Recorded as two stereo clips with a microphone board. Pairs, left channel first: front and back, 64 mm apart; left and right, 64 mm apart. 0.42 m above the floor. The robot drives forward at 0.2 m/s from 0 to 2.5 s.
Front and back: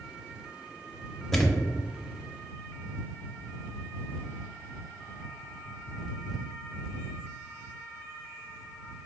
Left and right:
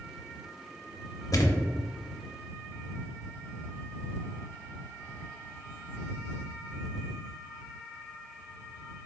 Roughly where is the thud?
Left.